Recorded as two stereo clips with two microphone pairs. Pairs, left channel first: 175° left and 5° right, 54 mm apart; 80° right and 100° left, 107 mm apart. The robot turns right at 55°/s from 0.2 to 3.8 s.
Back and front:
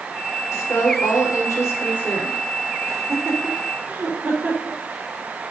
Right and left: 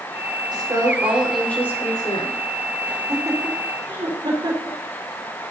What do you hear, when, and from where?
0.5 s a woman speaking: 145° left, 5 m; by 2.4 s 110° right, 5 m
2.9 s laughter: 10° left, 4.5 m; by 4.8 s 60° left, 4.5 m